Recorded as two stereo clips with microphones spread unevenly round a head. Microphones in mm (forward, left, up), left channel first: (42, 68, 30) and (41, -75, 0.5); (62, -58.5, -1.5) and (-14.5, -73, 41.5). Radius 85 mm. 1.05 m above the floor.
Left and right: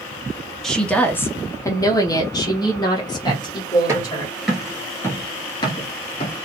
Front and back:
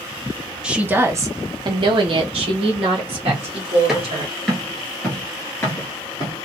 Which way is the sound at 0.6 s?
20° right.